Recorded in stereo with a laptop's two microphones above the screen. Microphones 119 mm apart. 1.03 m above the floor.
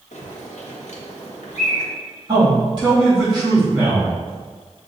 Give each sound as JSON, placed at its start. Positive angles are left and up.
{"t": 0.1, "sound": "a bird", "side_deg": 80, "distance_m": 0.9}
{"t": 2.3, "sound": "a man speaking", "side_deg": -35, "distance_m": 2.0}